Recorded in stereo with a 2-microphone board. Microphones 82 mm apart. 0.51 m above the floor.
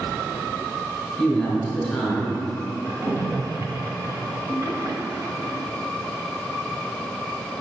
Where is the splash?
40° right (ahead or behind), 0.8 m.